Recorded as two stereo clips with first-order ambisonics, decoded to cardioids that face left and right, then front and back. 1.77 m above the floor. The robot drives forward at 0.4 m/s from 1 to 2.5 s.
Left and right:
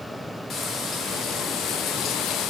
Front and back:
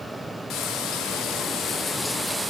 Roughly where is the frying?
Ahead left.